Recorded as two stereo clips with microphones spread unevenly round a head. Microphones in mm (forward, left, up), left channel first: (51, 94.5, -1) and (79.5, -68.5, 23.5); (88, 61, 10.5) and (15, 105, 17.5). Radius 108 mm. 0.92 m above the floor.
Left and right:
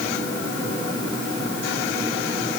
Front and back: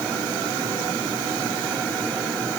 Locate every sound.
Only background noise.